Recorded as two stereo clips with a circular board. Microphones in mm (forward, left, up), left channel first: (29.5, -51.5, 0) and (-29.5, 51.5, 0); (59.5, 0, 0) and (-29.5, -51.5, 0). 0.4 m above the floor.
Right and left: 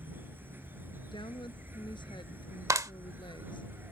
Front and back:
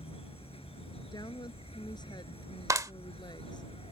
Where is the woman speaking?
15° right.